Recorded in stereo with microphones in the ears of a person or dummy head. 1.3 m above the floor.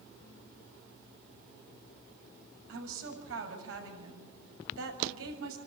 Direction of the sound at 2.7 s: 80° right.